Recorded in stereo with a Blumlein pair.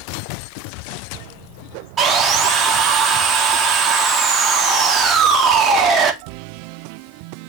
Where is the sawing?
20° right, 1.4 m.